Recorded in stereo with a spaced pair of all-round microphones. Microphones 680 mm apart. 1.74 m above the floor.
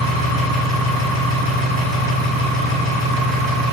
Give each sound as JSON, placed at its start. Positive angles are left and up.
{"t": 0.0, "sound": "an engine running", "side_deg": -30, "distance_m": 0.9}